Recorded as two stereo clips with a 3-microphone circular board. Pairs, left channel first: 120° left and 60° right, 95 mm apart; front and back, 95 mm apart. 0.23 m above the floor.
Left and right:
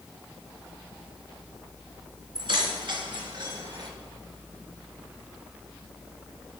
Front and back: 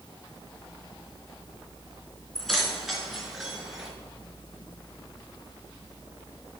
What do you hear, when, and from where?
2.4 s keys jangling: 85° right, 2 m; by 3.9 s 95° right, 3 m